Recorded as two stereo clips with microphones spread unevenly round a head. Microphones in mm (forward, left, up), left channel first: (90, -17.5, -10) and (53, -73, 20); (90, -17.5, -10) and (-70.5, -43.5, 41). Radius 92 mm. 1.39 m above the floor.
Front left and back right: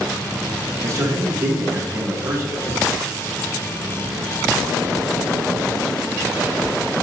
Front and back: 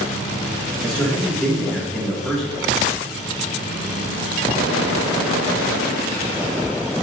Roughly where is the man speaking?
Right.